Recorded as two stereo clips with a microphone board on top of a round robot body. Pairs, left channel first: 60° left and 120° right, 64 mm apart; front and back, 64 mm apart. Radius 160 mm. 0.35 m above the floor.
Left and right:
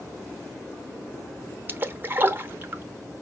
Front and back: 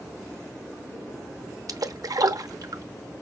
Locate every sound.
1.7 s a splash: 175° right, 0.9 m